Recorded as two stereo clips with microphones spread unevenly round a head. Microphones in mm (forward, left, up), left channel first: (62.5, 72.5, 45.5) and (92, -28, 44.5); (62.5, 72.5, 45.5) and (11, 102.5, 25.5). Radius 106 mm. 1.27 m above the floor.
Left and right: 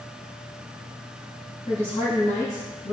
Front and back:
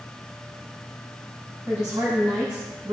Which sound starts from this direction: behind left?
A woman speaking, at 1.7 s.